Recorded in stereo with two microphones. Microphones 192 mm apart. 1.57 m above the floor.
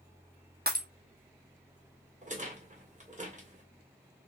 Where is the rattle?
40° right (ahead or behind), 1.6 m.